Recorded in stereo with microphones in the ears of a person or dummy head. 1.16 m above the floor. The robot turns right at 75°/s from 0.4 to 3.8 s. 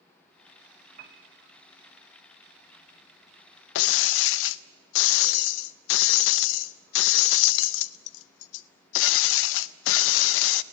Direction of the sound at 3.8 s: 70° left (ahead or behind).